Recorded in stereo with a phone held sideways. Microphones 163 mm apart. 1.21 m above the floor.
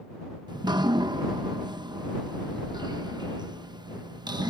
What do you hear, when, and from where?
0.5 s dripping: 25° right (ahead or behind)